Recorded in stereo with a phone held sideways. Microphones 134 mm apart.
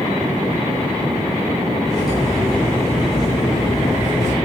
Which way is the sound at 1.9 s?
30° left (ahead or behind).